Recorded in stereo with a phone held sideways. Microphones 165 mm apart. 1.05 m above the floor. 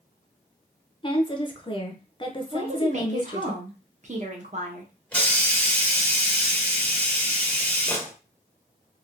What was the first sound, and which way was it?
A woman speaking, 30° left (ahead or behind).